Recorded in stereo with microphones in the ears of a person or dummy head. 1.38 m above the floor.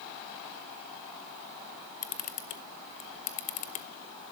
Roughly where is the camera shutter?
Left.